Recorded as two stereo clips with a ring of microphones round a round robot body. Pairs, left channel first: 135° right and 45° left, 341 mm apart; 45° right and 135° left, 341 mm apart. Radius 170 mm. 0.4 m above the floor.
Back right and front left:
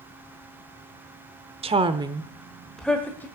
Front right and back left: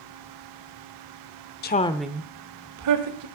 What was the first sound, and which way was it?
A woman speaking, 15° right.